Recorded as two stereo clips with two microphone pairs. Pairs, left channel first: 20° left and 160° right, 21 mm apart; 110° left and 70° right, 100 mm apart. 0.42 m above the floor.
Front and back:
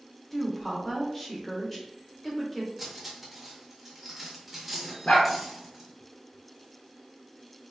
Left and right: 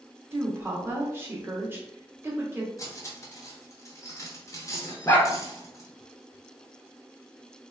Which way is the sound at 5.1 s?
50° left.